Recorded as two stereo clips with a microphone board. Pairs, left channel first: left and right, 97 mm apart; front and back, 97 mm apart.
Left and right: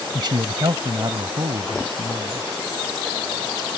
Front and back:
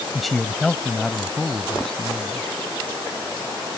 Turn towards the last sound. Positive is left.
turn(degrees=-80)